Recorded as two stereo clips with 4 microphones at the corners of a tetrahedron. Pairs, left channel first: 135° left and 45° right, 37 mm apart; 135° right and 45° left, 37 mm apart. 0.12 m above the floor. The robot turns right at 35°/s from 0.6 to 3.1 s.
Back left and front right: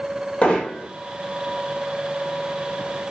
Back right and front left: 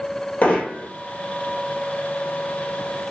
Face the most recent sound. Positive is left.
turn(degrees=-80)